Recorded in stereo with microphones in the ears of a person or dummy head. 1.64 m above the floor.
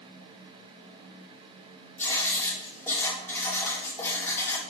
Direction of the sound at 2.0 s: 15° left (ahead or behind).